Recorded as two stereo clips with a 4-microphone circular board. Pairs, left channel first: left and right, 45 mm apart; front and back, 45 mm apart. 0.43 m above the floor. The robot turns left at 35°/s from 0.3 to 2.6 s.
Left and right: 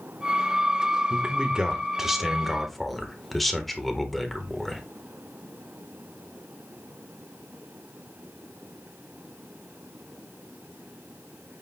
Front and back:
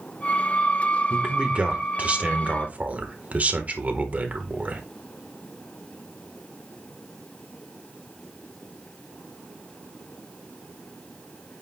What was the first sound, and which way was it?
A man speaking, 130° right.